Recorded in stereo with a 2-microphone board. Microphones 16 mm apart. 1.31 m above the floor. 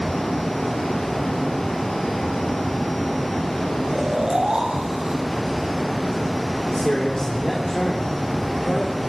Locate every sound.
3.9 s snoring: 50° right (ahead or behind), 7 m
6.7 s a man speaking: 45° left (ahead or behind), 3.5 m